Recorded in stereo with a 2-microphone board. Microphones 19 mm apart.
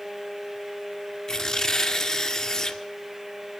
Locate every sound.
1.3 s tearing paper: 35° left (ahead or behind), 1.9 m